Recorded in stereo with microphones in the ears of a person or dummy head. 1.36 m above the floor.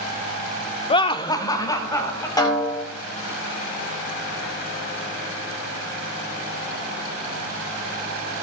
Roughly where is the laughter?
Left.